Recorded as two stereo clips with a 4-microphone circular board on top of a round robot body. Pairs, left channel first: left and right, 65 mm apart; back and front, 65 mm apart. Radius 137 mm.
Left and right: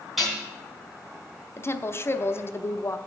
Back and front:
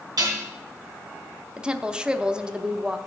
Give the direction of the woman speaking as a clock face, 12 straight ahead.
10 o'clock.